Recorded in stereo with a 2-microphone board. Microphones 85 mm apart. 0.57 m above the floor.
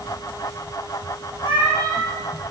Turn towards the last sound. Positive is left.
turn(degrees=65)  # may be behind; listen again after turning